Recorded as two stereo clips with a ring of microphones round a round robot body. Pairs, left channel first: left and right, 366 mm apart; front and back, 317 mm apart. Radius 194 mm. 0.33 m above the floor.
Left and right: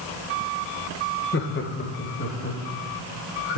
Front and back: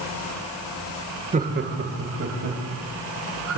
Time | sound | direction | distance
1.3 | laughter | 130° left | 1.1 m